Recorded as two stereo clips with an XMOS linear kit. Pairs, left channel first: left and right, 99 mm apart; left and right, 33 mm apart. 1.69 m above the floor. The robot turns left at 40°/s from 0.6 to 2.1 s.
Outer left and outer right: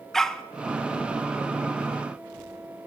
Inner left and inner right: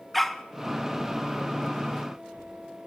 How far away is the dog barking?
About 1.1 m.